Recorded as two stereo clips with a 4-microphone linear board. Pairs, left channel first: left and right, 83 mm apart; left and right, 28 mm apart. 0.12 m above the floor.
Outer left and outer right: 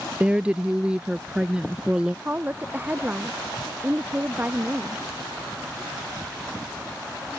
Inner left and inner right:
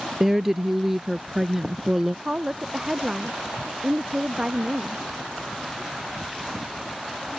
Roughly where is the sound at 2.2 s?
Right.